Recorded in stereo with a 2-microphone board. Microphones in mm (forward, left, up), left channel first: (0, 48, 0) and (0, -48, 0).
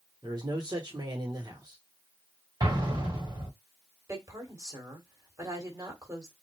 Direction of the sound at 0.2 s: 45° right (ahead or behind).